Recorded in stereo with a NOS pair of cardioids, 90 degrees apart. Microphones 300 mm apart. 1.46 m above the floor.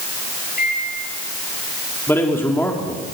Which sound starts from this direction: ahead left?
A microwave, at 0.6 s.